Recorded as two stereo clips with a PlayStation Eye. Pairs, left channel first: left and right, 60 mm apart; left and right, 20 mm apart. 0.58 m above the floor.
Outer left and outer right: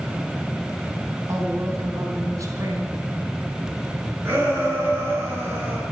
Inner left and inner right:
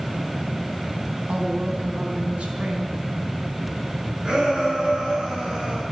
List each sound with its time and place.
1.3 s a woman speaking: 65° right (ahead or behind), 4 m
4.2 s a shout: 40° right (ahead or behind), 7 m